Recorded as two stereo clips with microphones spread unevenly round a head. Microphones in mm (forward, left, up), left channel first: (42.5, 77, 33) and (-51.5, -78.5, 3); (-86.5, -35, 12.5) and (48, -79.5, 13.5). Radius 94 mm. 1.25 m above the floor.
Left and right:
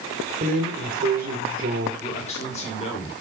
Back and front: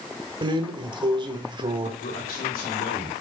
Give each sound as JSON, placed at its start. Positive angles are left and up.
{"t": 0.4, "sound": "a drawer", "azimuth_deg": -75, "distance_m": 1.8}
{"t": 2.0, "sound": "a man speaking", "azimuth_deg": 115, "distance_m": 4.5}